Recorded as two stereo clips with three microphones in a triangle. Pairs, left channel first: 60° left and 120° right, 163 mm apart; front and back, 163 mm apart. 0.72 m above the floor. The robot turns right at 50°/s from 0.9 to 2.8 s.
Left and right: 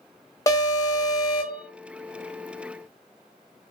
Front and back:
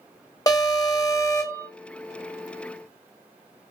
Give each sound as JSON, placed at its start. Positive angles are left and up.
{"t": 0.5, "sound": "an alarm", "azimuth_deg": 25, "distance_m": 0.9}